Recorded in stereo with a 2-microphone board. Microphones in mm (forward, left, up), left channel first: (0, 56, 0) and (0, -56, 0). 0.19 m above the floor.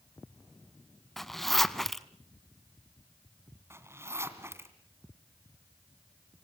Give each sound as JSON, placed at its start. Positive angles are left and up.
{"t": 1.2, "sound": "a zipper", "side_deg": 0, "distance_m": 0.8}
{"t": 3.7, "sound": "a zipper", "side_deg": -25, "distance_m": 1.9}